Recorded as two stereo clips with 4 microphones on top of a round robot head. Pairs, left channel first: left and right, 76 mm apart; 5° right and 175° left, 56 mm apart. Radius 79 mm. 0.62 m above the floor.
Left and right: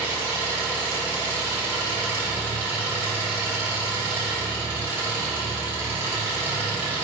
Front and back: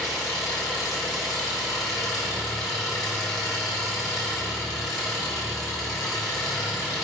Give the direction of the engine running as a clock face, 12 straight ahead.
1 o'clock.